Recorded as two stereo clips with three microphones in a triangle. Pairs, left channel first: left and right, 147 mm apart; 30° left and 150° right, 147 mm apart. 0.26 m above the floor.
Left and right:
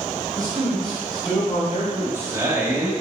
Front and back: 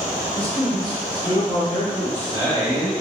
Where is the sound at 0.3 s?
110° right, 1.3 m; by 1.9 s 80° left, 2.0 m.